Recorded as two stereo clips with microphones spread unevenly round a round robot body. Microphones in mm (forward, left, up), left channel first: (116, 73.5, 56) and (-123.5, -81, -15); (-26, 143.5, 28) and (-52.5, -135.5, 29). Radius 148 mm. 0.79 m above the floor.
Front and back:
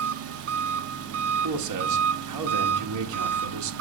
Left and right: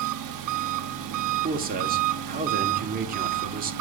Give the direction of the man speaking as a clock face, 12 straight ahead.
5 o'clock.